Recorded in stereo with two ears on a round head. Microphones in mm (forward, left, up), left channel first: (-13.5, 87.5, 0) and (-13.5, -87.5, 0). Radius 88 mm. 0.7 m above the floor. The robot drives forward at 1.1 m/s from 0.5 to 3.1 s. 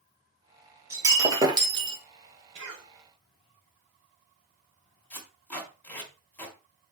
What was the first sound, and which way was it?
Breaking glass, 15° right (ahead or behind).